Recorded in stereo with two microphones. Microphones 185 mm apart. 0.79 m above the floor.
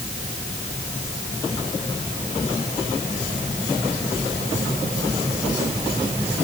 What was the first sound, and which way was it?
Only background noise.